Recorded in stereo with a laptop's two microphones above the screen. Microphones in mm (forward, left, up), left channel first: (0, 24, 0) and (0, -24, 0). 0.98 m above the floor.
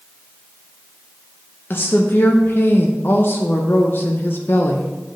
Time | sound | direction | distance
1.7 | a woman speaking | 50° left (ahead or behind) | 0.6 m